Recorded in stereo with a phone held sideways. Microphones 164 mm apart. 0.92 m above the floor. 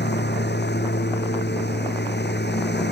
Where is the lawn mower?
80° left.